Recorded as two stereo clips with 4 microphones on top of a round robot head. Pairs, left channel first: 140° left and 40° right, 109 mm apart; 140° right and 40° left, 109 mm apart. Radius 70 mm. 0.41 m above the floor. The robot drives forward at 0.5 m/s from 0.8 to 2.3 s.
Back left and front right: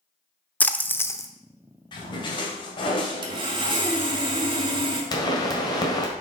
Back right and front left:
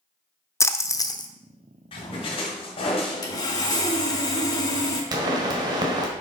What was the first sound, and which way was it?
A splash, 160° right.